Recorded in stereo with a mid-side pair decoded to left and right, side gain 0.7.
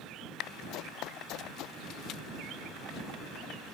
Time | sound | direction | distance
0.7 | running footsteps | 60° left | ?